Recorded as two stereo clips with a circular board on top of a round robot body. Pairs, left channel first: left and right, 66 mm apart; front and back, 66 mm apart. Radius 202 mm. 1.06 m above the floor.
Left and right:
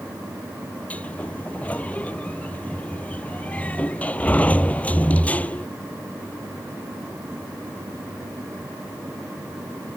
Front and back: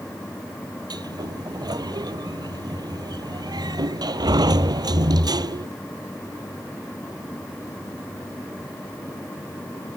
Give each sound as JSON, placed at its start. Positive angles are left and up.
{"t": 0.9, "sound": "a sliding door", "azimuth_deg": 160}